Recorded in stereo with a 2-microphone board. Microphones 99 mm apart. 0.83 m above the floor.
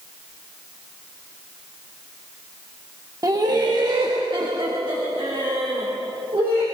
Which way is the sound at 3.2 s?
40° right (ahead or behind).